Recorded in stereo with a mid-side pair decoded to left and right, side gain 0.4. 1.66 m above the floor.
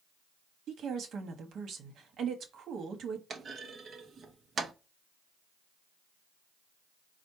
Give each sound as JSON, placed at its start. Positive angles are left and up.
{"t": 0.7, "sound": "a woman speaking", "azimuth_deg": -70, "distance_m": 1.3}
{"t": 3.3, "sound": "a clunk", "azimuth_deg": -50, "distance_m": 0.9}